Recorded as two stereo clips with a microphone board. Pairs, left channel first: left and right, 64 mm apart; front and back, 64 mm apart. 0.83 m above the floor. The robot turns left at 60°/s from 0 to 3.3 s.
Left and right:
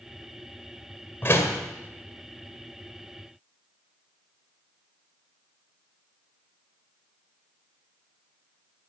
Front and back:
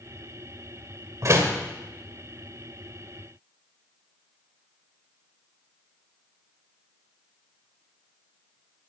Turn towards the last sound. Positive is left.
turn(degrees=20)